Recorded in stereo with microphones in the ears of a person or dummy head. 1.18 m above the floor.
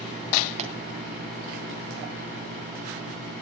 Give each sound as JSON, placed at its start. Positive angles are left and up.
{"t": 0.6, "sound": "a pop", "side_deg": -35, "distance_m": 3.0}